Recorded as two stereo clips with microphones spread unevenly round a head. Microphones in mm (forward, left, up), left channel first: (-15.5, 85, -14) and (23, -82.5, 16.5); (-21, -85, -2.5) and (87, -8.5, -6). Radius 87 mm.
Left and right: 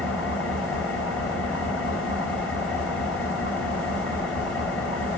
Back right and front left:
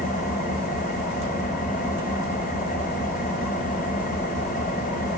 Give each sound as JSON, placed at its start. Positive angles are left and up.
{"t": 0.0, "sound": "an engine running", "azimuth_deg": -165, "distance_m": 2.5}